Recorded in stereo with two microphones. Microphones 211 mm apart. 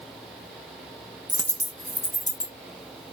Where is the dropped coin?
20° right (ahead or behind), 0.6 m.